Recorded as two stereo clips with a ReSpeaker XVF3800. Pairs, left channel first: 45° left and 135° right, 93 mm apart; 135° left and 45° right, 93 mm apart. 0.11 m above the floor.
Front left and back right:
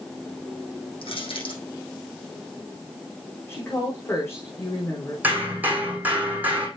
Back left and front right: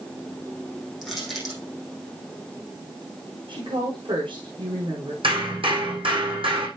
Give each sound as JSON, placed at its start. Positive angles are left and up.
{"t": 1.0, "sound": "crushing", "azimuth_deg": 45, "distance_m": 5.0}
{"t": 3.5, "sound": "a woman speaking", "azimuth_deg": -20, "distance_m": 5.5}
{"t": 5.2, "sound": "hammering", "azimuth_deg": -65, "distance_m": 4.0}